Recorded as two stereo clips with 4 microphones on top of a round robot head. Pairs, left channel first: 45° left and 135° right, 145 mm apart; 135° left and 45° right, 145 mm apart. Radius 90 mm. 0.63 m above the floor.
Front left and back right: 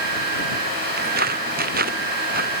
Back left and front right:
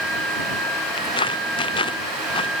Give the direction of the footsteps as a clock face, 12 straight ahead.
5 o'clock.